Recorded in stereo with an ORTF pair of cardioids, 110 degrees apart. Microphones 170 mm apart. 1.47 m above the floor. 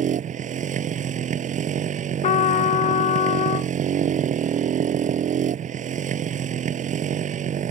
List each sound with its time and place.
0.0 s a motorcycle: 45° right
2.2 s a trumpet: 45° left